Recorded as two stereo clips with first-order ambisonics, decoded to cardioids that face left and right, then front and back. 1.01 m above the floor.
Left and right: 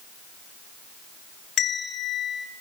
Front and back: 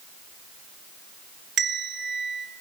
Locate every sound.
1.6 s a bell: 135° left, 1.0 m